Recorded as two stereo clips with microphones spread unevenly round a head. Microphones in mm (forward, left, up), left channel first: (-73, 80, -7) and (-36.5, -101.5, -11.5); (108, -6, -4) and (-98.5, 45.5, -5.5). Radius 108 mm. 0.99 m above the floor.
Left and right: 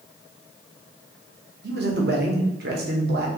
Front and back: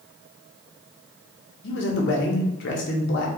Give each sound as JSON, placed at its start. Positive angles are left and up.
{"t": 1.6, "sound": "a man speaking", "azimuth_deg": -45, "distance_m": 0.8}